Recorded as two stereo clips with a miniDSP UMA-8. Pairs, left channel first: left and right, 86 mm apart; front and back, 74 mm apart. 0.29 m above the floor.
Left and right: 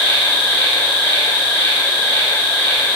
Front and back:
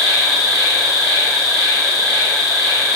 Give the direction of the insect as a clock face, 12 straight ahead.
7 o'clock.